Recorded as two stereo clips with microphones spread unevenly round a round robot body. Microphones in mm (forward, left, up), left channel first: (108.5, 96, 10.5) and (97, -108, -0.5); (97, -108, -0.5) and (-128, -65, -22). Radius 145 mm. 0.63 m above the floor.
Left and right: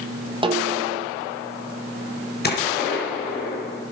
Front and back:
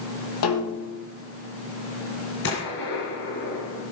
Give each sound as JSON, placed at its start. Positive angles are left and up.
{"t": 0.4, "sound": "a snare drum", "azimuth_deg": -25, "distance_m": 3.5}
{"t": 2.4, "sound": "a gunshot", "azimuth_deg": 45, "distance_m": 5.0}